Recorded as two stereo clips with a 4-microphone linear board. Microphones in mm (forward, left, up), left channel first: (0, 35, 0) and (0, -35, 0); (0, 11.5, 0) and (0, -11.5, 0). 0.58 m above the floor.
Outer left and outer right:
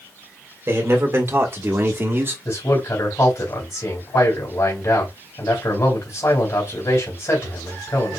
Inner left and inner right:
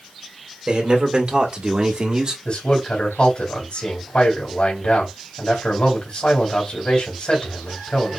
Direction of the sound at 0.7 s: 40° right (ahead or behind).